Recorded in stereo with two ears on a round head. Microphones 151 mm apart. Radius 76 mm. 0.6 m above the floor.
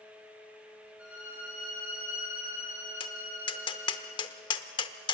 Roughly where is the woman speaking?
No woman speaking in this recording.